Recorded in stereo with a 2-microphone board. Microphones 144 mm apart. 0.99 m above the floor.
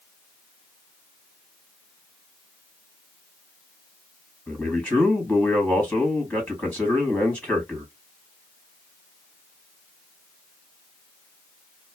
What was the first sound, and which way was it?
A man speaking, 10° left (ahead or behind).